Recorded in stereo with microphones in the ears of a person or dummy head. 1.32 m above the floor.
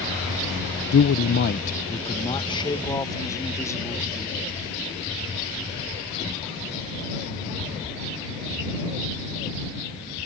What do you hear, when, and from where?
0.9 s a man speaking: 75° left (ahead or behind); by 4.6 s 15° left (ahead or behind)